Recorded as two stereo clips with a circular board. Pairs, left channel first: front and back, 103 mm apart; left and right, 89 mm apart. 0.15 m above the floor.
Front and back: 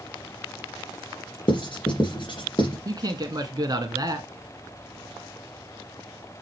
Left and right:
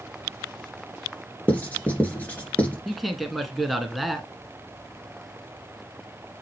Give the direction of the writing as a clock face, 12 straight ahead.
11 o'clock.